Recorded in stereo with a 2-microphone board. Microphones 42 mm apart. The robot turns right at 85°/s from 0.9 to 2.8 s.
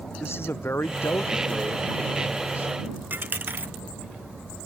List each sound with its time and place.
0.2 s a man speaking: 80° left; by 2.7 s 125° right
3.1 s a dropped coin: 50° right (ahead or behind)